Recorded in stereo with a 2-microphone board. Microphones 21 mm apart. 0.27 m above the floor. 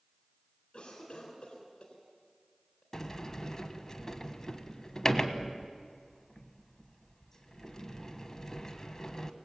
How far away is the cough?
About 3.5 m.